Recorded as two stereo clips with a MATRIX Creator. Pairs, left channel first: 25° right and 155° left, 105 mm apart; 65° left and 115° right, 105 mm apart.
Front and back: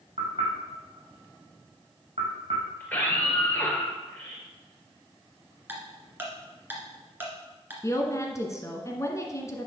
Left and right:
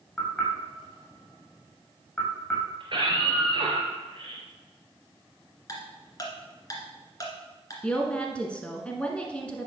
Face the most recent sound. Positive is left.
turn(degrees=0)